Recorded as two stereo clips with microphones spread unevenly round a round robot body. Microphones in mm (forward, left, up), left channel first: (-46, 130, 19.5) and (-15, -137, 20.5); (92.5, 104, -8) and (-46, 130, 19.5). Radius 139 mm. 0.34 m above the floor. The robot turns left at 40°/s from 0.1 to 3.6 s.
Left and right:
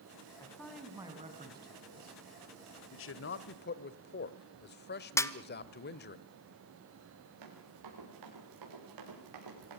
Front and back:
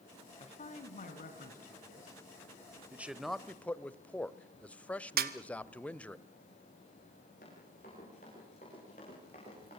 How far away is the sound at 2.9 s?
About 1.2 m.